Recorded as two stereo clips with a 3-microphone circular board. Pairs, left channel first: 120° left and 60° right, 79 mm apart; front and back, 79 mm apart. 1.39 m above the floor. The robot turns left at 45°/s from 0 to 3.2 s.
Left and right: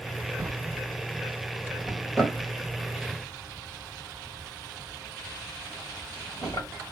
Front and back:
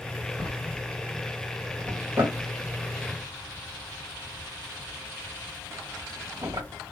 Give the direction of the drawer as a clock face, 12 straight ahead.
3 o'clock.